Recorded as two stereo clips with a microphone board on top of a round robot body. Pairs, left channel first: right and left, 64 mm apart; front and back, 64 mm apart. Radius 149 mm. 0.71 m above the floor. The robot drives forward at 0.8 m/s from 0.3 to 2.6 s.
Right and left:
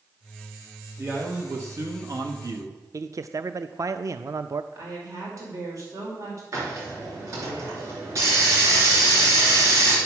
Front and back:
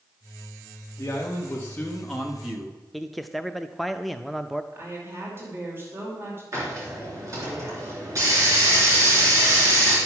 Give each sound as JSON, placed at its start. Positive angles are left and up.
{"t": 1.0, "sound": "a man speaking", "azimuth_deg": 45, "distance_m": 1.6}
{"t": 2.9, "sound": "a man speaking", "azimuth_deg": 90, "distance_m": 0.6}
{"t": 4.7, "sound": "a woman speaking", "azimuth_deg": 125, "distance_m": 2.5}
{"t": 6.5, "sound": "a hiss", "azimuth_deg": 135, "distance_m": 3.0}